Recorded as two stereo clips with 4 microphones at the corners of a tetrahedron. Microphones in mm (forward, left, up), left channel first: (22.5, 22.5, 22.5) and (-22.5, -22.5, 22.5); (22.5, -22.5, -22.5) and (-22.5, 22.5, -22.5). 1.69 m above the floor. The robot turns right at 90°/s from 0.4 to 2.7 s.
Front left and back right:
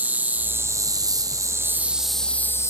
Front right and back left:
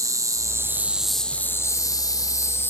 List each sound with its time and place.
0.0 s an insect: 160° left, 1.0 m; by 2.7 s 10° left, 1.0 m